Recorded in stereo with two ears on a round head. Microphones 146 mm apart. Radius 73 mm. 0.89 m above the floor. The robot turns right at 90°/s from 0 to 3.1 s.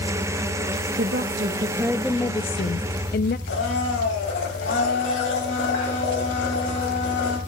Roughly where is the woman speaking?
Right.